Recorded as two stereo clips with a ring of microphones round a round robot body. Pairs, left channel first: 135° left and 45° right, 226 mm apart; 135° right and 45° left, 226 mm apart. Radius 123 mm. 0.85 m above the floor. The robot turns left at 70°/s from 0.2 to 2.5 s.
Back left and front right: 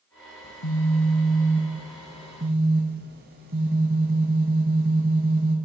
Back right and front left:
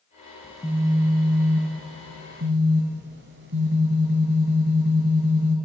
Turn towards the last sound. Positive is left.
turn(degrees=5)